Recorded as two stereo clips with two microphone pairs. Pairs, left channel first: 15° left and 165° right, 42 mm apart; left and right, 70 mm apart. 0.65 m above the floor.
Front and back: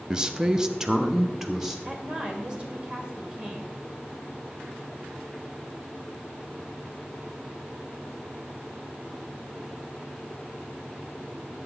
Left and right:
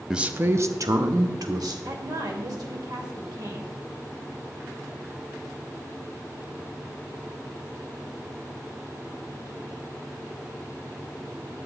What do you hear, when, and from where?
0.1 s a man speaking: 155° right, 0.5 m; by 1.8 s 85° right, 1.5 m
1.9 s a woman speaking: 105° right, 2 m